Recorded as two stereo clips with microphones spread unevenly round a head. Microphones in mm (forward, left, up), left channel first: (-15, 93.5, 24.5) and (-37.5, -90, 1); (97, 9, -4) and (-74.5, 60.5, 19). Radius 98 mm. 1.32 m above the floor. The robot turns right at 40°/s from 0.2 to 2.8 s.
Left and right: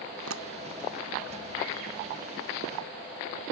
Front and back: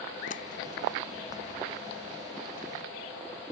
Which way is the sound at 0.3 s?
75° right.